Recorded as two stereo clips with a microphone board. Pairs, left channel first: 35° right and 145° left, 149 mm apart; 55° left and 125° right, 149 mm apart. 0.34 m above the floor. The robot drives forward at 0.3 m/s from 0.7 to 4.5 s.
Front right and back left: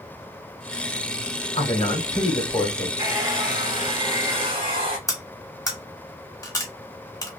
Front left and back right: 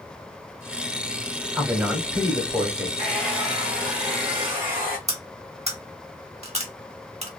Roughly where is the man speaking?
Ahead right.